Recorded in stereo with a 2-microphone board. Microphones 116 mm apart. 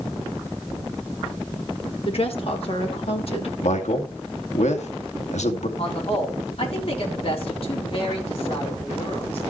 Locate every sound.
2.0 s a woman speaking: 55° left (ahead or behind), 2.5 m
3.6 s a man speaking: 80° left, 2 m
5.8 s a man speaking: 50° left (ahead or behind), 4 m